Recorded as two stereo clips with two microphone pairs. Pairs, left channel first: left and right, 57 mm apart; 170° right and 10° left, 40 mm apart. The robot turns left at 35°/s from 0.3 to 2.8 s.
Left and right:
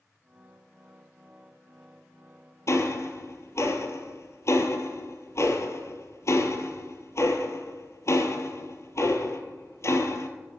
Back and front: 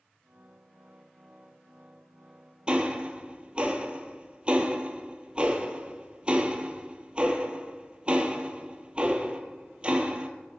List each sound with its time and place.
2.7 s ticking: 70° left, 0.8 m; by 10.3 s 65° left, 0.8 m